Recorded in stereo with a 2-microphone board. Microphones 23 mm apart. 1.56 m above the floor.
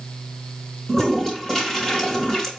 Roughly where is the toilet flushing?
Left.